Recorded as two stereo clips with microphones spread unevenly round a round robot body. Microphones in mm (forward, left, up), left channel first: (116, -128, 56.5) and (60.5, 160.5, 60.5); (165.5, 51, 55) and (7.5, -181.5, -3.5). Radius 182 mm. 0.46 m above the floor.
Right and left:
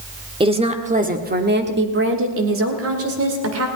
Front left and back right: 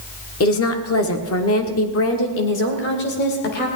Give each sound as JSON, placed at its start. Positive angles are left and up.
{"t": 0.4, "sound": "a woman speaking", "azimuth_deg": 35, "distance_m": 1.7}